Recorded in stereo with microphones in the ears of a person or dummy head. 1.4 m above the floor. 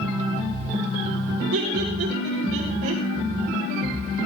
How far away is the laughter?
About 5 m.